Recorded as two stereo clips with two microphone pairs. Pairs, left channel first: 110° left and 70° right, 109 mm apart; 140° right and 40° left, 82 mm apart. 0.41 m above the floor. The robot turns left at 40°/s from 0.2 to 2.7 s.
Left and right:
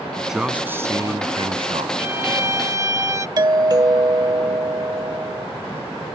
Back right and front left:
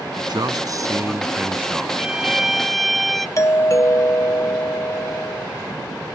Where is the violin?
25° right; by 3.3 s 55° right.